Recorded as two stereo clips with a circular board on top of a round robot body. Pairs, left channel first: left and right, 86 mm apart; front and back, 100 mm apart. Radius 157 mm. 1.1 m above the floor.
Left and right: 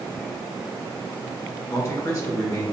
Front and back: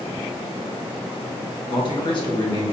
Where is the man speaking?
35° left, 1.2 m.